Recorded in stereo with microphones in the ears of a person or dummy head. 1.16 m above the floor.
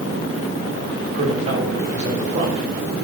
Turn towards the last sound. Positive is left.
turn(degrees=-35)  # may be behind; listen again after turning